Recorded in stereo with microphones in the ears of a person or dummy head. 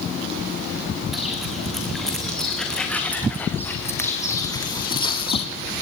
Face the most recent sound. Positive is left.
turn(degrees=25)  # may be behind; listen again after turning